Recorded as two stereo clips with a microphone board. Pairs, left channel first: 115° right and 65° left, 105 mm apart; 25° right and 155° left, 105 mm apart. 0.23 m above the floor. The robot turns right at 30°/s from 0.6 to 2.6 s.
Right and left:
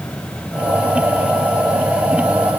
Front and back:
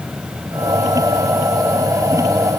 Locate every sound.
Only background noise.